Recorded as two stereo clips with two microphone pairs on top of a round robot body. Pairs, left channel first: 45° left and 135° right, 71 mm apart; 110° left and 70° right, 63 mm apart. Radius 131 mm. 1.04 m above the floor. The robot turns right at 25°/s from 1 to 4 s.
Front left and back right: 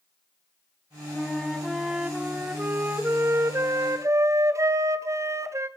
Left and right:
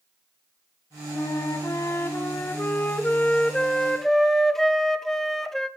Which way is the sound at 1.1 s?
125° left.